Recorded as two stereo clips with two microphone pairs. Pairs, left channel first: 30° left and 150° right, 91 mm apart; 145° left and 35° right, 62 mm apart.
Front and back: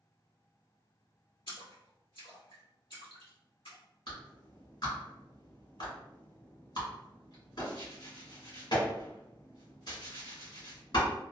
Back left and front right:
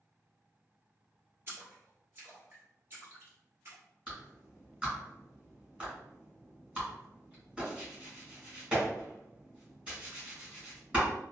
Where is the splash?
20° left, 1.6 m.